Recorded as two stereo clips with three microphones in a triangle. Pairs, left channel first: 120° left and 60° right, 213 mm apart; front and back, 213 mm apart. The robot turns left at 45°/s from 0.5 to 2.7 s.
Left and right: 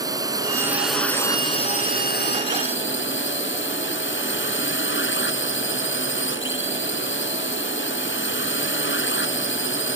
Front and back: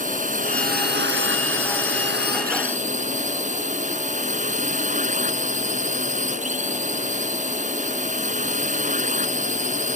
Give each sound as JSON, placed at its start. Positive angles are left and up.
{"t": 0.0, "sound": "a drone", "azimuth_deg": -130}